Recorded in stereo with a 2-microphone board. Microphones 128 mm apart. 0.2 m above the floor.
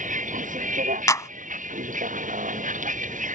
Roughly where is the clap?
Left.